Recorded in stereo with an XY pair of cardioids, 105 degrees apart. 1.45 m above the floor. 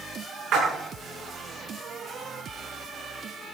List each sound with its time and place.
0.5 s a splash: 70° right, 7.5 m